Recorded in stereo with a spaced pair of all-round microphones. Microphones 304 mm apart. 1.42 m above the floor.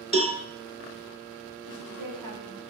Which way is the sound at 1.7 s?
85° right.